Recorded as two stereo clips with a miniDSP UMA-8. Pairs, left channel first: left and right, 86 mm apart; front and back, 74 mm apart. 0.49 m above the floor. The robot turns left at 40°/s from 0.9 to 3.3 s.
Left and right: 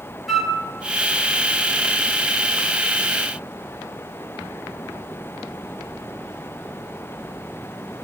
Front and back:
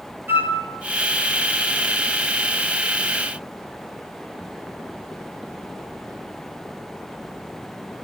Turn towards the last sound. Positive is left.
turn(degrees=85)